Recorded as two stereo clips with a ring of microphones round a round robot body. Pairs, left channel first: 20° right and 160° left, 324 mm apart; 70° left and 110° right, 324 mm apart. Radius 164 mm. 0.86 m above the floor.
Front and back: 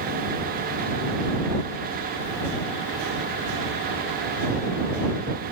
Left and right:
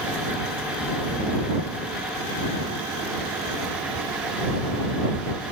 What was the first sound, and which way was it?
Only background noise.